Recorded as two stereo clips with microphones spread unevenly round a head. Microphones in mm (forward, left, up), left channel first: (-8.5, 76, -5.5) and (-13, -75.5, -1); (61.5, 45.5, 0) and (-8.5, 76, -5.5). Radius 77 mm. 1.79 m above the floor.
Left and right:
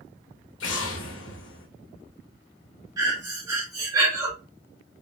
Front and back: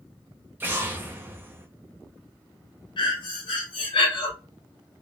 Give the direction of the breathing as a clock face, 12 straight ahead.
1 o'clock.